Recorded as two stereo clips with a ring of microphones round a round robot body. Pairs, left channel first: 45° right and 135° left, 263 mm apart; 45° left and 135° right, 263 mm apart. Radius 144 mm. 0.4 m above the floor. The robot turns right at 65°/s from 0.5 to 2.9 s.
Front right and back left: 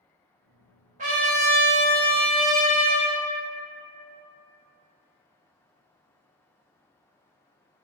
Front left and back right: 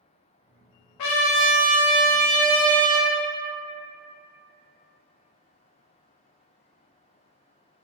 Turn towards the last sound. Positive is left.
turn(degrees=-165)